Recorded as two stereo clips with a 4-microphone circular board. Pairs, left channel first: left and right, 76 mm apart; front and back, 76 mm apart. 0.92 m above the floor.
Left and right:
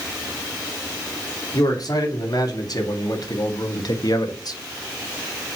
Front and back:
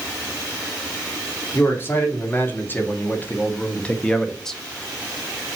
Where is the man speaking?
60° left, 3 m; by 4.6 s 85° left, 1.3 m.